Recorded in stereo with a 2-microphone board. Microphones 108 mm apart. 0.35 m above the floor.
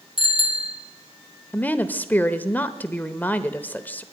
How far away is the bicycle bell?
About 2.5 m.